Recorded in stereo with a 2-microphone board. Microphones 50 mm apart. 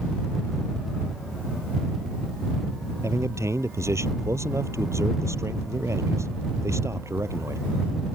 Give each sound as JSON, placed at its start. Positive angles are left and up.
{"t": 3.0, "sound": "a man speaking", "side_deg": -70}